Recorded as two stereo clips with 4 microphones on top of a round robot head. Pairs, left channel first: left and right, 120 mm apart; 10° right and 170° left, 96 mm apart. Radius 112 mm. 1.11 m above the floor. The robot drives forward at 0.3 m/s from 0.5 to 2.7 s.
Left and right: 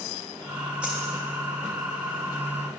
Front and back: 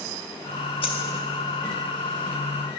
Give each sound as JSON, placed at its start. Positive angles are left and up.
{"t": 0.8, "sound": "a dropped coin", "azimuth_deg": -5, "distance_m": 1.0}